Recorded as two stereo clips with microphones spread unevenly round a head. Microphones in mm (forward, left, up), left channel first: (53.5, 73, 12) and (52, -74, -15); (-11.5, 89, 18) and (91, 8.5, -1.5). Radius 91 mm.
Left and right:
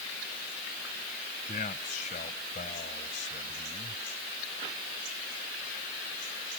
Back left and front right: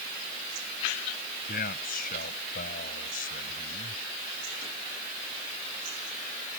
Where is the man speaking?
145° left; by 4.0 s 140° left.